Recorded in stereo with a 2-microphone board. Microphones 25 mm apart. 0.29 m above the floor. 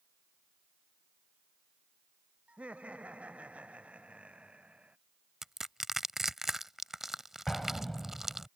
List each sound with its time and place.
2.5 s laughter: 60° right (ahead or behind); by 5.0 s 55° right (ahead or behind)
5.4 s crushing: 15° right (ahead or behind)
7.5 s an explosion: 20° left (ahead or behind)